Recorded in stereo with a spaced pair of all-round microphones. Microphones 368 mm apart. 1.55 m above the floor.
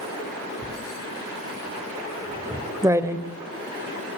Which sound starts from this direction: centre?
Writing, at 0.6 s.